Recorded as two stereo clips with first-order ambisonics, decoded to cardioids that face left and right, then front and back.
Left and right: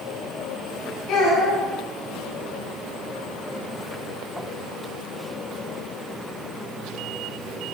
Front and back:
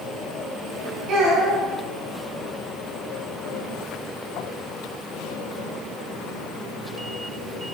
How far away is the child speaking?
About 2.5 m.